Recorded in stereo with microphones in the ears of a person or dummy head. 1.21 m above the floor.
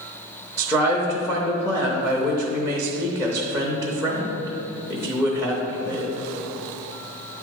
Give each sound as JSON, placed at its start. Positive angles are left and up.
{"t": 0.6, "sound": "a man speaking", "side_deg": 10, "distance_m": 0.9}